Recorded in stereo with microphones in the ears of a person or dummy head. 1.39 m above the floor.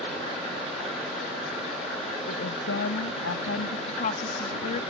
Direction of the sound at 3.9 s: 45° left (ahead or behind).